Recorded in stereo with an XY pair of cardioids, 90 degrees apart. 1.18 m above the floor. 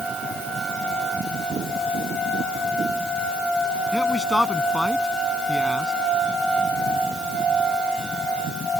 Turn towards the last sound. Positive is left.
turn(degrees=15)